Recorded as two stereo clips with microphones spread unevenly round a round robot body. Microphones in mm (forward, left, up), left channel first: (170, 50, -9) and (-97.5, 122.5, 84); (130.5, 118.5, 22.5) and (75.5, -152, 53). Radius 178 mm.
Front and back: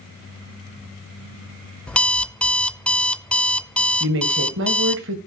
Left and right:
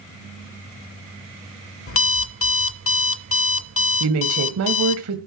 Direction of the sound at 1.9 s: 55° left.